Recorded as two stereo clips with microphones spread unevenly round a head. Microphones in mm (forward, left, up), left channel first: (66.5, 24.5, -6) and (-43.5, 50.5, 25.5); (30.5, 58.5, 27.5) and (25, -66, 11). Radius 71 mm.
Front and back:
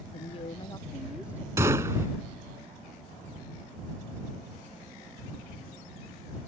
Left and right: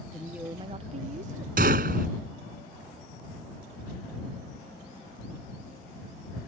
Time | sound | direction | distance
0.1 | a woman speaking | straight ahead | ?
1.6 | a gunshot | 125° right | ?